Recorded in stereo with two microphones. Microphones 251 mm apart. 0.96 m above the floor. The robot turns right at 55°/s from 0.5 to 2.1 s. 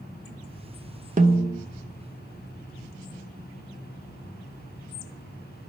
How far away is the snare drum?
About 0.6 m.